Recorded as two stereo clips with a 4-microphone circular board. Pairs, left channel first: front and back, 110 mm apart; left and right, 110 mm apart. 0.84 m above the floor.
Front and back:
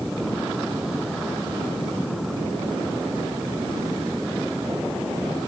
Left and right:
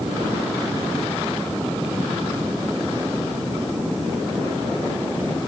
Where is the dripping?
No dripping in this recording.